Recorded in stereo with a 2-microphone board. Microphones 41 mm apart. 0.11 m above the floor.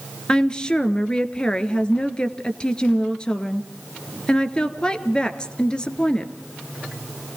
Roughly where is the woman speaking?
Left.